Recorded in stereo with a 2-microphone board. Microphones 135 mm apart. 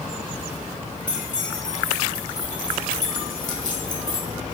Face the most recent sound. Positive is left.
turn(degrees=70)  # may be behind; listen again after turning